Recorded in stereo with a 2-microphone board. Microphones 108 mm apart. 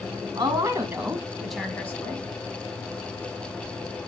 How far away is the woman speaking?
About 2.5 m.